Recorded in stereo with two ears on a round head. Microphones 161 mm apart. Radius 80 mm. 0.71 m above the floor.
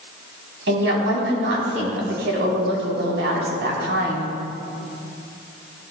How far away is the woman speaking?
About 5 m.